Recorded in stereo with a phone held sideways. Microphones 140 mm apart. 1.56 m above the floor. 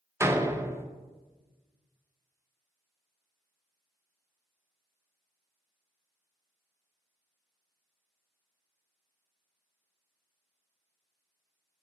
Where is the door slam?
15° right (ahead or behind), 0.6 m.